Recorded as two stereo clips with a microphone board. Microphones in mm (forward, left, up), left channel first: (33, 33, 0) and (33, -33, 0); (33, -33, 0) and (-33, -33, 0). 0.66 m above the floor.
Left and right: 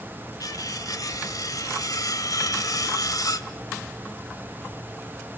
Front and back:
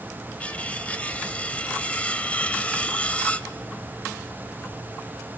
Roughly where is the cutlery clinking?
Left.